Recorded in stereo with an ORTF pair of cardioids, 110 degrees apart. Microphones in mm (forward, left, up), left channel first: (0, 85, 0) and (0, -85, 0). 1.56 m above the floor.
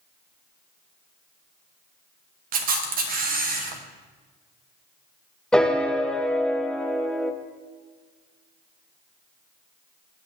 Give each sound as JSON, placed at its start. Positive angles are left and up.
{"t": 2.5, "sound": "a camera shutter", "azimuth_deg": -60, "distance_m": 1.0}
{"t": 5.5, "sound": "a piano", "azimuth_deg": 5, "distance_m": 0.6}